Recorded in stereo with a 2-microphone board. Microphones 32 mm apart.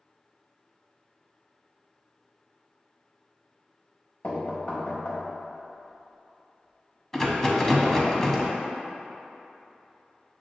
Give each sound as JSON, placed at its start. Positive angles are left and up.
{"t": 4.2, "sound": "knocking", "side_deg": 50, "distance_m": 0.8}
{"t": 7.1, "sound": "a rattle", "side_deg": 15, "distance_m": 0.5}